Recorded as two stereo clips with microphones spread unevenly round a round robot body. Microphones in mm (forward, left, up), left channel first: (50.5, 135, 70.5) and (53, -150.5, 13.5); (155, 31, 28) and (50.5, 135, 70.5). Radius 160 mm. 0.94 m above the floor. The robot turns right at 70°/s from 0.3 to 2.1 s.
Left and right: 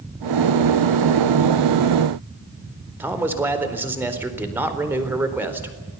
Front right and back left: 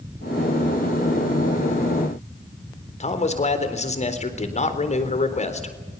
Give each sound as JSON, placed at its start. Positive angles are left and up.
{"t": 3.0, "sound": "a man speaking", "azimuth_deg": -10, "distance_m": 4.0}